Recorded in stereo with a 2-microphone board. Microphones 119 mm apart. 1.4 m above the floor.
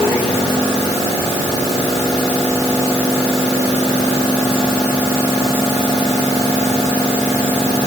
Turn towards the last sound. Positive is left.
No sound to turn to.